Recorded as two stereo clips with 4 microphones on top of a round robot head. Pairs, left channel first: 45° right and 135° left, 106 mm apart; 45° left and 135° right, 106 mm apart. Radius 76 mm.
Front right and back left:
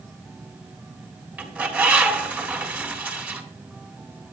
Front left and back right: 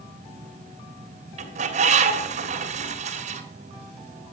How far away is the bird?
About 3.5 m.